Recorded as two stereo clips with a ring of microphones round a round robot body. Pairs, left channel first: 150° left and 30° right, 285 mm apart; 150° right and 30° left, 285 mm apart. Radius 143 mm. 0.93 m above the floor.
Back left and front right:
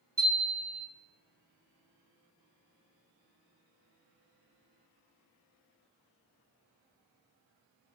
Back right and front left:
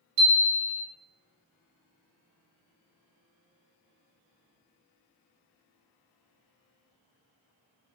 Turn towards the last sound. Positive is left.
turn(degrees=50)